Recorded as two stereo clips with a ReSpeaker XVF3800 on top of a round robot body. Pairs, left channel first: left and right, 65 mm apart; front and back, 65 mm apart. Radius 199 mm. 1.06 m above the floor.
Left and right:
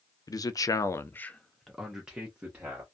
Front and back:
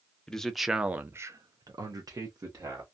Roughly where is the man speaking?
Left.